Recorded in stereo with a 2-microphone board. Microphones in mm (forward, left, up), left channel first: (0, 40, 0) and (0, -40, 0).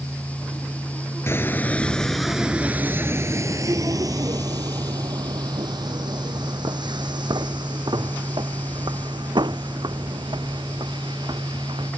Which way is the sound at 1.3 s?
35° left (ahead or behind).